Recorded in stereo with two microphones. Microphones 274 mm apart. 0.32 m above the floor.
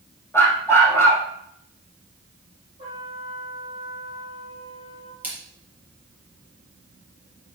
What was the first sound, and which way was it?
A dog barking, 10° left (ahead or behind).